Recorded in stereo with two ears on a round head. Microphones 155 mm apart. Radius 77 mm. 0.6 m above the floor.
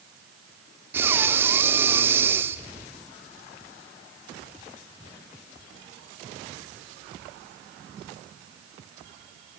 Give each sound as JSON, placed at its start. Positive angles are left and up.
{"t": 0.9, "sound": "breathing", "side_deg": -15, "distance_m": 0.6}